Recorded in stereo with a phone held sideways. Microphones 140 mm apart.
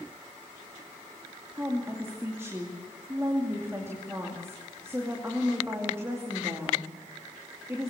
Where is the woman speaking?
20° right (ahead or behind), 2.5 m.